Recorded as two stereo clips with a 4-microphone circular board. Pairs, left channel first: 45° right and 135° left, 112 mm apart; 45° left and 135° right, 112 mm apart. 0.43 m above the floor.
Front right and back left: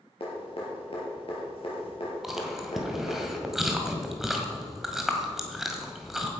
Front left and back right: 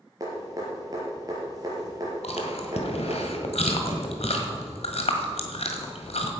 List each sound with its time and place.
0.2 s dripping: 80° right, 4.5 m
2.2 s chewing: 50° left, 1.8 m